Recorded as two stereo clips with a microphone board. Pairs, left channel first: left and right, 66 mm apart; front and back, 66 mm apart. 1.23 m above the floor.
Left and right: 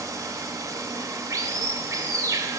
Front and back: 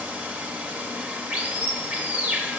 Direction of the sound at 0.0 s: 110° right.